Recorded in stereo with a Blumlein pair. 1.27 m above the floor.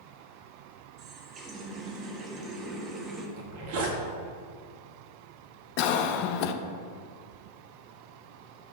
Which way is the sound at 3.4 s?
50° right.